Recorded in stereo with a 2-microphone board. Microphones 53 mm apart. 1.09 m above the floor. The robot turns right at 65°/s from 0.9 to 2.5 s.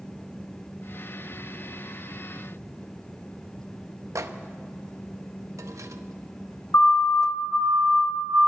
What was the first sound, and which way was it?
A microwave, 80° right.